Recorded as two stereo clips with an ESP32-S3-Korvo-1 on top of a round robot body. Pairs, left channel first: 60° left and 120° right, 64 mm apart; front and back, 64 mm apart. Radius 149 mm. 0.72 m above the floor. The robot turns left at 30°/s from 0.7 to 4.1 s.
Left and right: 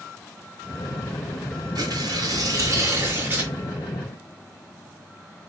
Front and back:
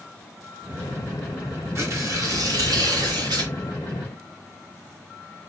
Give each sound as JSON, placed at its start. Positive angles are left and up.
{"t": 1.8, "sound": "tearing paper", "azimuth_deg": -140, "distance_m": 2.0}